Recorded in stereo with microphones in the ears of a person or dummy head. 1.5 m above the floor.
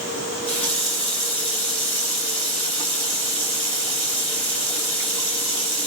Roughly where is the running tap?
Left.